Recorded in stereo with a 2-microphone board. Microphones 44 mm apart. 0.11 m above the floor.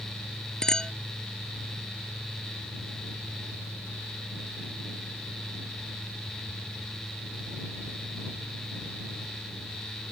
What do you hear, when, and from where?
0.6 s a clink: 15° left (ahead or behind)